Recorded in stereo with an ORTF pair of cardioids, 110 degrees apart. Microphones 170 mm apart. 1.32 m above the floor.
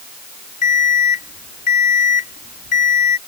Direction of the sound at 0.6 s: 50° left.